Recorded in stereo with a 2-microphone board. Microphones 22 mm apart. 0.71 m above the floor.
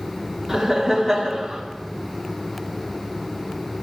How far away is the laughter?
About 1.7 m.